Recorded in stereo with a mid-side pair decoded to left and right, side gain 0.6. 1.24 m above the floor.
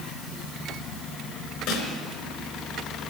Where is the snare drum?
65° left, 3.5 m.